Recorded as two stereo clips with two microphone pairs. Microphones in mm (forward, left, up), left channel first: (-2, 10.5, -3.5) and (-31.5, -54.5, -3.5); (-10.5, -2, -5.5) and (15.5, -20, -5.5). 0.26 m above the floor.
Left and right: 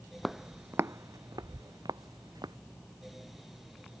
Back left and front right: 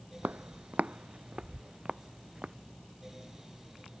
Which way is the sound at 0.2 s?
25° right.